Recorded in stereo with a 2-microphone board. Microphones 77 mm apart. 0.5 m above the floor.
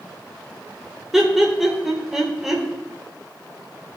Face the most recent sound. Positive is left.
turn(degrees=-5)  # may be behind; listen again after turning